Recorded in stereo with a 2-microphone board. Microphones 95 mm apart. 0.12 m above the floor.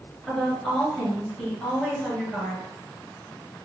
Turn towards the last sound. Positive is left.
turn(degrees=10)  # may be behind; listen again after turning